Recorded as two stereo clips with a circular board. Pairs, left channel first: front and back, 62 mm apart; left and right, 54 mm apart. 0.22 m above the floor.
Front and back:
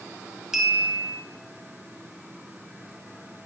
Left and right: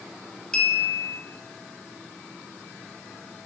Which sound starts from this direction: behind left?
A clink, at 0.5 s.